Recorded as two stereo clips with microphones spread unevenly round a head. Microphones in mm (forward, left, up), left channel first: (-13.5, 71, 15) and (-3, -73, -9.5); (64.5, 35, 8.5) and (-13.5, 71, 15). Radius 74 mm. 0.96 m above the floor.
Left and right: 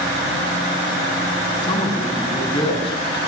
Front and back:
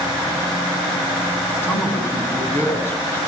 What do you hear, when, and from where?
1.6 s a man speaking: 35° left, 8.5 m